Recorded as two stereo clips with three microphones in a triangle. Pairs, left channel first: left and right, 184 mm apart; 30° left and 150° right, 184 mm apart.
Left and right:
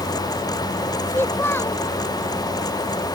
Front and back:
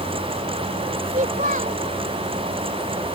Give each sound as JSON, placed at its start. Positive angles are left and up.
{"t": 1.1, "sound": "a child speaking", "azimuth_deg": 165}